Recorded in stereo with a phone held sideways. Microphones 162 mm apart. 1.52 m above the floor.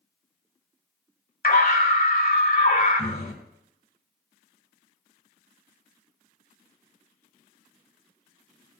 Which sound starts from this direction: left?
A scream, at 1.4 s.